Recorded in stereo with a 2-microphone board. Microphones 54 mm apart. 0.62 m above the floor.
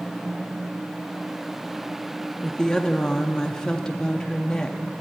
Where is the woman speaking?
15° left (ahead or behind), 0.5 m.